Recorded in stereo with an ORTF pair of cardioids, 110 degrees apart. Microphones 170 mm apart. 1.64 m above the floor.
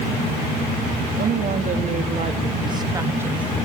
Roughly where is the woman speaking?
Ahead right.